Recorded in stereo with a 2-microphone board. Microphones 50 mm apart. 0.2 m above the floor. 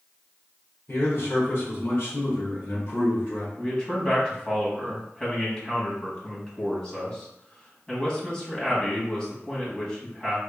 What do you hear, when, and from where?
0.9 s a man speaking: 50° left (ahead or behind), 1.9 m
3.6 s a man speaking: 15° left (ahead or behind), 1.5 m